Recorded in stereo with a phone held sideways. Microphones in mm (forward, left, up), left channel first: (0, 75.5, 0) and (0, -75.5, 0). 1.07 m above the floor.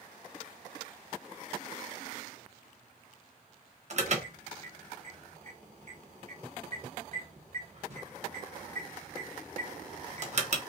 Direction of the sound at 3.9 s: 50° right (ahead or behind).